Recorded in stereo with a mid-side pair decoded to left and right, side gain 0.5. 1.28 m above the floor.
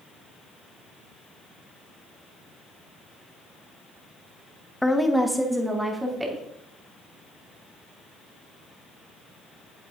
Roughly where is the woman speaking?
Ahead.